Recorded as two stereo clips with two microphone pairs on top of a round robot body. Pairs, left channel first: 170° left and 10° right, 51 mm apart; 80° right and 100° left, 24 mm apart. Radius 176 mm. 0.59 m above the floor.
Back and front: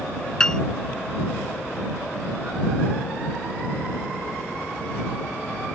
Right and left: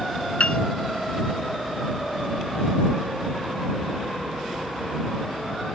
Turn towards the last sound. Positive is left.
turn(degrees=-115)